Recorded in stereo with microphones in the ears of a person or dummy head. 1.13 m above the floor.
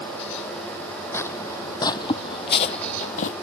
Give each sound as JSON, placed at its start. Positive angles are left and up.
{"t": 1.1, "sound": "footsteps", "side_deg": 15}